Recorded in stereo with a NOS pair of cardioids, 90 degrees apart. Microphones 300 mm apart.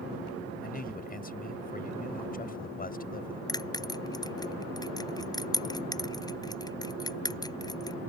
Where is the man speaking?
30° left.